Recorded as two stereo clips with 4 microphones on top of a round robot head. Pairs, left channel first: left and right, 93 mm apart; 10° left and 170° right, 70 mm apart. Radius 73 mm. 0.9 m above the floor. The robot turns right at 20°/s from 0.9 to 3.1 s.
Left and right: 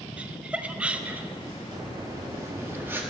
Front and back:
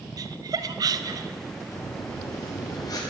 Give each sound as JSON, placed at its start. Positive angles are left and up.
{"t": 0.2, "sound": "laughter", "azimuth_deg": -165, "distance_m": 0.8}
{"t": 1.7, "sound": "breathing", "azimuth_deg": -50, "distance_m": 2.0}